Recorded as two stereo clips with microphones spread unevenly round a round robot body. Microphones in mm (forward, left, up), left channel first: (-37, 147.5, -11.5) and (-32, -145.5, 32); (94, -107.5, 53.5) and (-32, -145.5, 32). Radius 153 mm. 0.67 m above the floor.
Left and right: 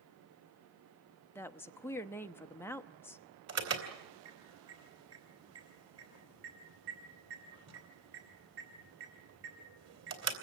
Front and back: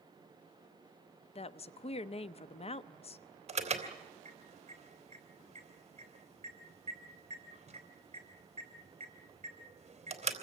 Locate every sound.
1.4 s a woman speaking: 25° left, 0.7 m
3.5 s an alarm: 130° right, 3.5 m